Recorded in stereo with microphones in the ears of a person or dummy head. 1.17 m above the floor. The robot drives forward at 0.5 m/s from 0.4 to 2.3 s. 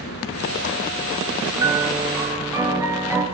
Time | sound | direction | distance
0.0 | an engine running | 55° left (ahead or behind) | 2.5 m
1.6 | a piano | 15° right (ahead or behind) | 5 m